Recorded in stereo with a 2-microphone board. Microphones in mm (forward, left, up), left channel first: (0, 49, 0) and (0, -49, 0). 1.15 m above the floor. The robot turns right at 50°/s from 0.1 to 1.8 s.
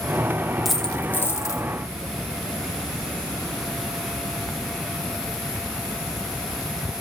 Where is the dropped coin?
Straight ahead, 1.1 m; by 1.6 s 50° left, 1.1 m.